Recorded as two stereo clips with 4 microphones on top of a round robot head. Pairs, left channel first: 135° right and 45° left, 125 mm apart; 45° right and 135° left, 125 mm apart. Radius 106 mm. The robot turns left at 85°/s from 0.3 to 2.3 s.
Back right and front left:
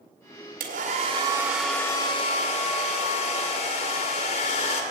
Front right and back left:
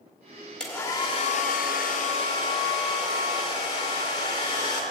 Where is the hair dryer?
40° left, 1.7 m; by 4.8 s 105° right, 1.7 m.